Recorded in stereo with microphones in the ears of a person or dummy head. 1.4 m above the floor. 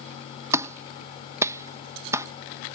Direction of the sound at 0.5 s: 20° right (ahead or behind).